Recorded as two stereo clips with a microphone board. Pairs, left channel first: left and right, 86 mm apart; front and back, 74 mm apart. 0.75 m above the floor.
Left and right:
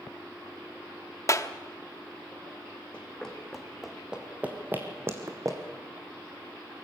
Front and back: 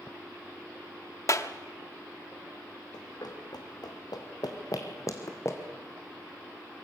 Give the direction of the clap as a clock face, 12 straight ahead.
11 o'clock.